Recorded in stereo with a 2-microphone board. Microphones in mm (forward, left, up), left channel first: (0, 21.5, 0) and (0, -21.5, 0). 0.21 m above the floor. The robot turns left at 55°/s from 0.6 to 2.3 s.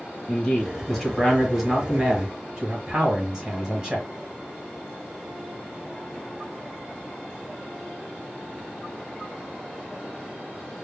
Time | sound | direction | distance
0.3 | a man speaking | 20° left (ahead or behind) | 1.4 m